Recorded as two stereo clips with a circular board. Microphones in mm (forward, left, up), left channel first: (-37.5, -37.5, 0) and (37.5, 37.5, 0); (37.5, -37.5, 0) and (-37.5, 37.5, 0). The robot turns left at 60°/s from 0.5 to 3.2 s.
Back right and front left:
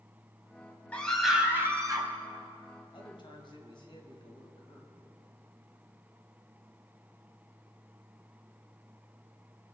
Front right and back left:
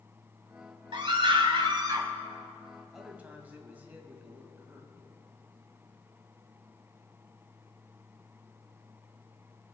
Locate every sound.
0.9 s a scream: 150° left, 1.7 m; by 2.1 s 80° left, 1.7 m
2.9 s a man speaking: 140° right, 2 m; by 5.1 s 155° right, 2 m